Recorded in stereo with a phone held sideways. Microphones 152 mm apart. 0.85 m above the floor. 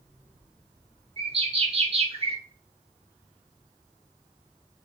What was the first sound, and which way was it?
A bird, 40° right (ahead or behind).